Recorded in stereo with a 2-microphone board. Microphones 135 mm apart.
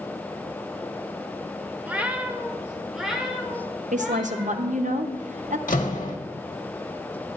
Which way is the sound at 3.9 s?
65° right (ahead or behind).